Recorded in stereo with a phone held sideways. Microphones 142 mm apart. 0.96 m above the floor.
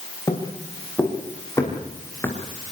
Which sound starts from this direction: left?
Footsteps, at 0.3 s.